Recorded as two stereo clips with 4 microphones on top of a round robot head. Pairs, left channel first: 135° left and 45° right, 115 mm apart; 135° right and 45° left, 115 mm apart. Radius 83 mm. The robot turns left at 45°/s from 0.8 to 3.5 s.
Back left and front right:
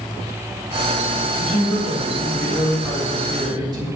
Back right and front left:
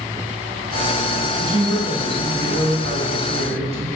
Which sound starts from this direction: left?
A man speaking, at 1.4 s.